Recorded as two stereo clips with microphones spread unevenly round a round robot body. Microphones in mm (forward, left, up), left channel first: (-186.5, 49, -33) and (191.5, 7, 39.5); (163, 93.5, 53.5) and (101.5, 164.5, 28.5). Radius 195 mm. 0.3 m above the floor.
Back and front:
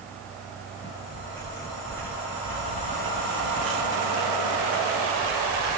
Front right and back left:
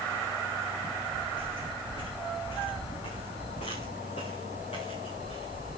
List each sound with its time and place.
0.8 s footsteps: 105° right, 6 m; by 5.8 s 85° right, 3 m